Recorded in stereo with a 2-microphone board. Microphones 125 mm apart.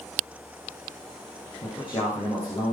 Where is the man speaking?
40° left (ahead or behind), 6.5 m.